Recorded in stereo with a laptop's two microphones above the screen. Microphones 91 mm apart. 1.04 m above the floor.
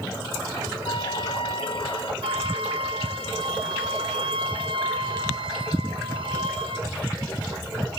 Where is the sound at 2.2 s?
70° right (ahead or behind), 1.4 m.